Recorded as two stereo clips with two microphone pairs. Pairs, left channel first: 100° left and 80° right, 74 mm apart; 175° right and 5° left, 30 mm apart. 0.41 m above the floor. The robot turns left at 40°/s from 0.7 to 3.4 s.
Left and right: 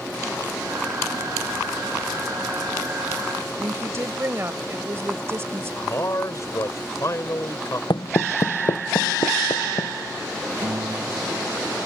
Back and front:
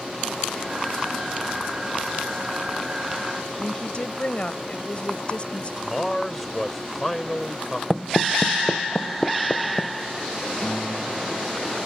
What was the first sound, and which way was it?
A woman speaking, 135° right.